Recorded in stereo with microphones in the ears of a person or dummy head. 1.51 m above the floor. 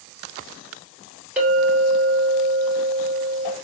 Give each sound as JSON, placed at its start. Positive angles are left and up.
{"t": 1.4, "sound": "a clink", "side_deg": -5, "distance_m": 2.0}